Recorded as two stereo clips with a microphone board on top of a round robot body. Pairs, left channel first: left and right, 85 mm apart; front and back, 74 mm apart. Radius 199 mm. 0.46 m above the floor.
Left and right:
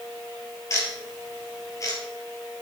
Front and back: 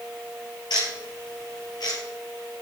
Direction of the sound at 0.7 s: 35° left.